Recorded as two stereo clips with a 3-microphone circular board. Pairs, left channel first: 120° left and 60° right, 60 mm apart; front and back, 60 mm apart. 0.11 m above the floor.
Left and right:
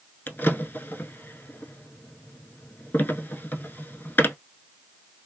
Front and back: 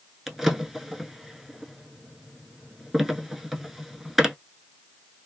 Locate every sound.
0.3 s a drawer: 95° left, 0.6 m